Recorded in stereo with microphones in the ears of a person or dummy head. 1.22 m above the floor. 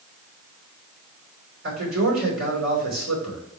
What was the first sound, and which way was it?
A man speaking, 85° right.